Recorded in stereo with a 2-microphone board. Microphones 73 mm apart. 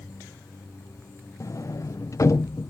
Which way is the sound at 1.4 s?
45° left (ahead or behind).